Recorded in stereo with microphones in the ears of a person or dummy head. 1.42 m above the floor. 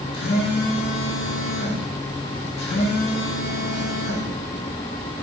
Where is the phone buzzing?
65° left (ahead or behind), 2 m.